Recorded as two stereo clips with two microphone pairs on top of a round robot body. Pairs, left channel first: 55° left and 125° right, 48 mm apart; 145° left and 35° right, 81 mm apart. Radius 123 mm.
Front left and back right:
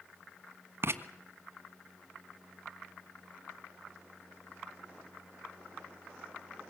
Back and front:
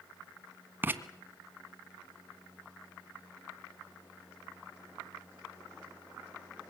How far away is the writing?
About 1.4 m.